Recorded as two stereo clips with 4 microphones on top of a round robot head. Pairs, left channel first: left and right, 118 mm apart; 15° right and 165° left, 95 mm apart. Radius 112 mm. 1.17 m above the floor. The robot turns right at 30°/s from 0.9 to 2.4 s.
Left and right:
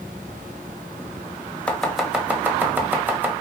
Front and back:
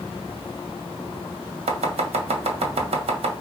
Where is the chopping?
170° left, 1.8 m; by 3.3 s 165° right, 1.8 m.